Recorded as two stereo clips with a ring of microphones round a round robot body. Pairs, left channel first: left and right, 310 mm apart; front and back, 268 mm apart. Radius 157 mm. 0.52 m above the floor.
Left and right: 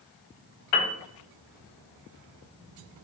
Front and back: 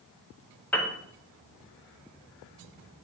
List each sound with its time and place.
0.7 s a piano: 85° left, 0.7 m